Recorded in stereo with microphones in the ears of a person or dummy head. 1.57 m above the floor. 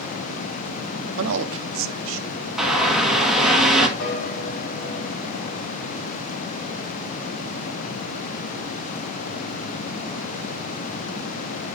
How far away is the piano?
About 3 m.